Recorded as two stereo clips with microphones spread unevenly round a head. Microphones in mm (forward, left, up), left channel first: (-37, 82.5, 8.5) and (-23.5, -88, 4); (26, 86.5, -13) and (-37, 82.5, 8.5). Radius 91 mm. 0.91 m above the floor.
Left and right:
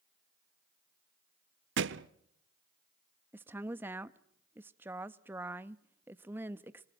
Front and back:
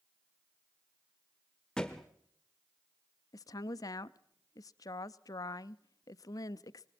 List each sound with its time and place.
1.8 s a thud: 90° right, 0.9 m
3.3 s a woman speaking: 5° right, 0.8 m